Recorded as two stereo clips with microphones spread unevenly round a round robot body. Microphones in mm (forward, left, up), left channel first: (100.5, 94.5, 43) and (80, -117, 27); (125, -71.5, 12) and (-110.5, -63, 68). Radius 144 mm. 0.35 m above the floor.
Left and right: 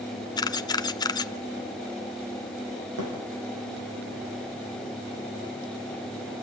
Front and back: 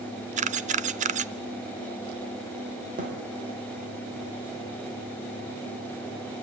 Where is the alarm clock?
No alarm clock in this recording.